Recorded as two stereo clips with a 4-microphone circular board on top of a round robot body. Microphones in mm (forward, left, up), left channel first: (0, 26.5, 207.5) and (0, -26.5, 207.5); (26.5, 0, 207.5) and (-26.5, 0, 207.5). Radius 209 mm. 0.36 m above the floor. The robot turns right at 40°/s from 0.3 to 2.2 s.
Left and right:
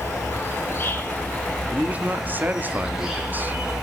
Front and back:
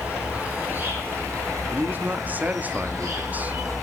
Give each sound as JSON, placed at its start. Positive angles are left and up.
{"t": 0.0, "sound": "an insect", "azimuth_deg": 110, "distance_m": 7.5}
{"t": 1.7, "sound": "a man speaking", "azimuth_deg": -155, "distance_m": 1.7}